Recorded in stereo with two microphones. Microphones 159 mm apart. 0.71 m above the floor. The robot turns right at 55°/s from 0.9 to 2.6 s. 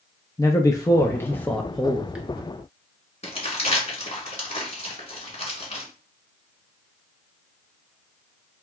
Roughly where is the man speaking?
Left.